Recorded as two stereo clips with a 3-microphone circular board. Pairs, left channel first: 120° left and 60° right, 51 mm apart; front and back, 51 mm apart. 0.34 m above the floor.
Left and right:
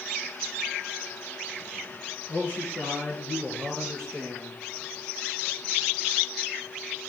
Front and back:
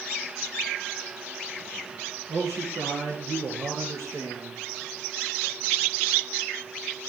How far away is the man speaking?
About 5.5 m.